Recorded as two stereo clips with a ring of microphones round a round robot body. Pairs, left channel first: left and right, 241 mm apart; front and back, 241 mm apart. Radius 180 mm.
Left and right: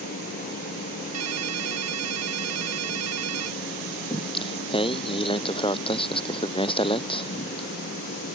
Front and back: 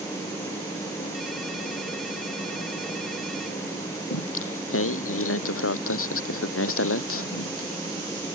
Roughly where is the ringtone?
Right.